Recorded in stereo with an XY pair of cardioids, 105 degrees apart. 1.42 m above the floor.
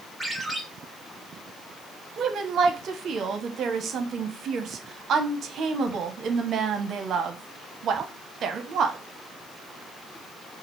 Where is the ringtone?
Straight ahead, 2.0 m.